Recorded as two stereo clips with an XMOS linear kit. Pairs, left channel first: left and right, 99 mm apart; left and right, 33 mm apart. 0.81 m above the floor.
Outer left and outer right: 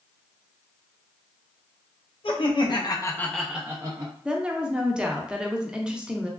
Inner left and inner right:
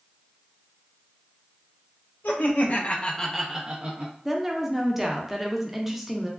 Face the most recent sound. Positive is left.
turn(degrees=-10)  # may be behind; listen again after turning